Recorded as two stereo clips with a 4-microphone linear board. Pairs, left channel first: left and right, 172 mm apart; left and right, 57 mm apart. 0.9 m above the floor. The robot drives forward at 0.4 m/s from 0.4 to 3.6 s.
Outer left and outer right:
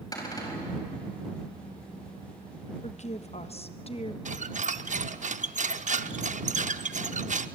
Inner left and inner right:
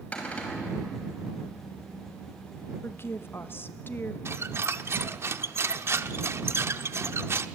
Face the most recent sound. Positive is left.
turn(degrees=-45)  # may be behind; listen again after turning